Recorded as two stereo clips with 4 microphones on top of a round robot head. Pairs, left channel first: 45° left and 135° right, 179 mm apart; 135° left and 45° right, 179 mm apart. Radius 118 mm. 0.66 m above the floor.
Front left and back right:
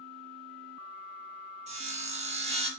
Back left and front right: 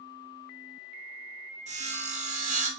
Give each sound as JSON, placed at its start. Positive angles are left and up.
{"t": 1.7, "sound": "sawing", "azimuth_deg": -90, "distance_m": 0.8}